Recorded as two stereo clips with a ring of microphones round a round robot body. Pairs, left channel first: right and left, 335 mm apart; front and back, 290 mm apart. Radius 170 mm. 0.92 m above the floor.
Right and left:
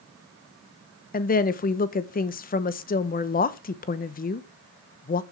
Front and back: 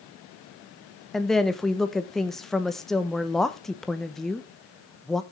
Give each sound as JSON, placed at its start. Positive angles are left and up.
{"t": 1.1, "sound": "a woman speaking", "azimuth_deg": -85, "distance_m": 0.9}